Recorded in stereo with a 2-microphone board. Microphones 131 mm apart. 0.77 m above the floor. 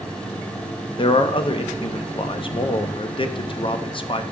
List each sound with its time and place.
1.0 s a man speaking: 40° left (ahead or behind), 0.5 m